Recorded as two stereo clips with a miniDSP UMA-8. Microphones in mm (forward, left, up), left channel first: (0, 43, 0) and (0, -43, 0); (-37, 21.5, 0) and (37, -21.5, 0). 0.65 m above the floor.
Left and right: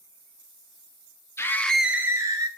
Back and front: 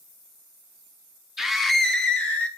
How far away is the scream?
About 0.7 m.